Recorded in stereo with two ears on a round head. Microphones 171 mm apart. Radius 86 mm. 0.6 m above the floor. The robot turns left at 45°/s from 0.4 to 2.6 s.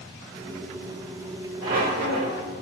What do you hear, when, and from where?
1.6 s a squeak: 35° right, 3.5 m; by 2.4 s 70° right, 3.5 m